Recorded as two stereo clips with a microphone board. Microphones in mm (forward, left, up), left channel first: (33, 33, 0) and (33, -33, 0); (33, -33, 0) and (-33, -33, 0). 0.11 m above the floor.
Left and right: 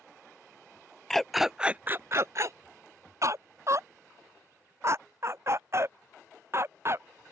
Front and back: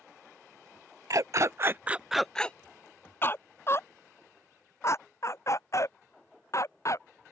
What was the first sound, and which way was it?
A dog barking, 175° left.